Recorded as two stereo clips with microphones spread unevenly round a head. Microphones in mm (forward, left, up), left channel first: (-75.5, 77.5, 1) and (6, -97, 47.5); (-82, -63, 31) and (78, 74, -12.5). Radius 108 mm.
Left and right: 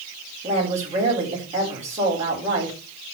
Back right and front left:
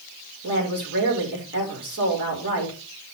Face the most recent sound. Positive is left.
turn(degrees=-5)